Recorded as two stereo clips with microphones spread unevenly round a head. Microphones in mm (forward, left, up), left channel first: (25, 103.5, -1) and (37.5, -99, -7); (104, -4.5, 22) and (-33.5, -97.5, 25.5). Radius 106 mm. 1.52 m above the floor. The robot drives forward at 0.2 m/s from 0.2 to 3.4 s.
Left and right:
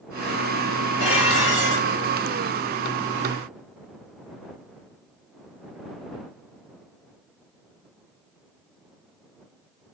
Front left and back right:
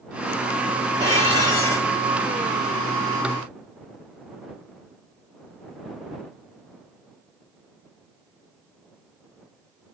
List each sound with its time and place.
1.0 s dishes clattering: 75° left, 3 m